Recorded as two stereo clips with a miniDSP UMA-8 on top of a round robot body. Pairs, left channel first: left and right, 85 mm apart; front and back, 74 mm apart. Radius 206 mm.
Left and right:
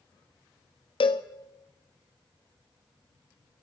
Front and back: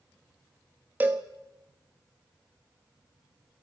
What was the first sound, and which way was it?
A cowbell, 110° left.